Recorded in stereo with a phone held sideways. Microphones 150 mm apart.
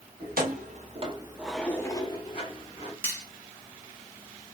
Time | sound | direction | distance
0.2 | keys jangling | 80° right | 1.1 m
3.0 | cutlery clinking | 15° left (ahead or behind) | 1.2 m